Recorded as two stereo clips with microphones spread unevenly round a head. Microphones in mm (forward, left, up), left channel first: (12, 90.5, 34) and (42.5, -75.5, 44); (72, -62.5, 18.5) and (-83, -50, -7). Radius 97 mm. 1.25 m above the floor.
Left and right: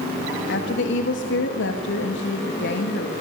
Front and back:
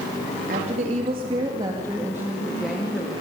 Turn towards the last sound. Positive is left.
turn(degrees=75)